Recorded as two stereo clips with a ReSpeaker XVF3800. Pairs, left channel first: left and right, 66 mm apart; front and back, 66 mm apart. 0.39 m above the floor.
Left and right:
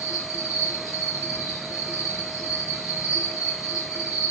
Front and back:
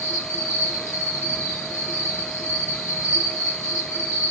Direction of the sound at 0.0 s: 55° left.